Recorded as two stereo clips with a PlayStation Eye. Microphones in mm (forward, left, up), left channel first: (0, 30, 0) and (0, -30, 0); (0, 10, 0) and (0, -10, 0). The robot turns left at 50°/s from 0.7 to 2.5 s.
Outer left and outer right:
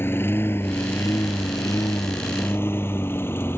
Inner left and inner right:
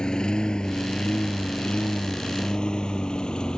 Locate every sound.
0.0 s a lawn mower: 40° left (ahead or behind); by 3.6 s 45° left (ahead or behind)